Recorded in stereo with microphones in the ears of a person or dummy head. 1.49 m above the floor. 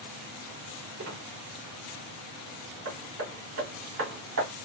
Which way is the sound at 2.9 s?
70° right (ahead or behind).